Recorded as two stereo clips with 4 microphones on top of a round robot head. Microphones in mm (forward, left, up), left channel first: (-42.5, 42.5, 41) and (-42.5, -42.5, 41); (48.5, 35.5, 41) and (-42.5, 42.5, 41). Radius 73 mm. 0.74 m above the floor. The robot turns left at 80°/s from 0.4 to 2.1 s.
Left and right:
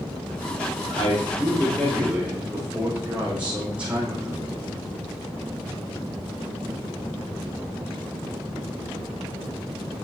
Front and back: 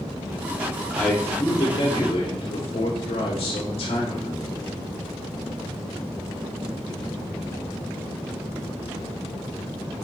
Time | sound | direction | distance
0.9 | a man speaking | 80° left | 3 m